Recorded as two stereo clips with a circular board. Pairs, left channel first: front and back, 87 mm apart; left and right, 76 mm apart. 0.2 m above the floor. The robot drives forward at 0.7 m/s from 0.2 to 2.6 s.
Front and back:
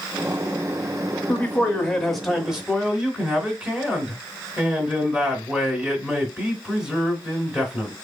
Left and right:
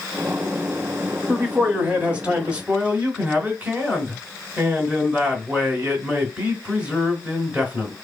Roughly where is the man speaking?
Ahead right.